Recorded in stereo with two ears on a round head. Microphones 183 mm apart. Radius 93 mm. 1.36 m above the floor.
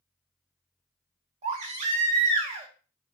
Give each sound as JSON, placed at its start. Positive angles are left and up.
{"t": 1.4, "sound": "a baby crying", "side_deg": -35, "distance_m": 1.1}